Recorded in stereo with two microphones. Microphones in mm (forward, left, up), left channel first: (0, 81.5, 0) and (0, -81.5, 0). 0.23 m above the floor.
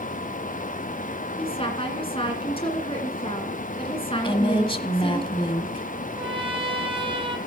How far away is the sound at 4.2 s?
About 1.1 m.